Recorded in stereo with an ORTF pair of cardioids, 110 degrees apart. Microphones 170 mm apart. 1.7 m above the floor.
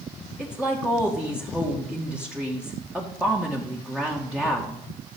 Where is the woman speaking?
5° right, 1.9 m.